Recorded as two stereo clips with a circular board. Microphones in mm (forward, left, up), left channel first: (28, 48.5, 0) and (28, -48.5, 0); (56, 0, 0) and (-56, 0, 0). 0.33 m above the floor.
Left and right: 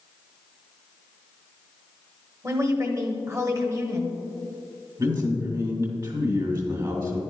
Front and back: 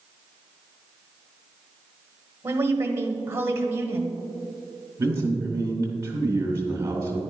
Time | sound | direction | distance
2.4 | a woman speaking | 130° right | 1.2 m
5.0 | a man speaking | 120° right | 2.5 m